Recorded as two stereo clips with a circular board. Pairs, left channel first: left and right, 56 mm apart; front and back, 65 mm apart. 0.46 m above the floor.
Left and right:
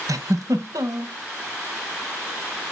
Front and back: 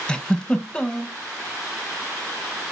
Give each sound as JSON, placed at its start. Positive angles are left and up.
{"t": 0.1, "sound": "a giggle", "azimuth_deg": -75, "distance_m": 1.1}